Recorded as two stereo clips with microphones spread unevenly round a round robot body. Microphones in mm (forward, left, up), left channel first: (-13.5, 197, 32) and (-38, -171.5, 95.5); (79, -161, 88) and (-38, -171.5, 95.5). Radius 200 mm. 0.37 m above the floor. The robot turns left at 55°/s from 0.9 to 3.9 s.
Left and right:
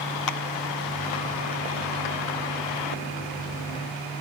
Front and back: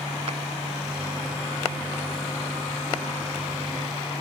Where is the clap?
125° left.